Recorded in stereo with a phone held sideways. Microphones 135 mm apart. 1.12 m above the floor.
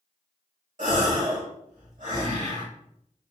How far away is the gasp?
About 1.7 m.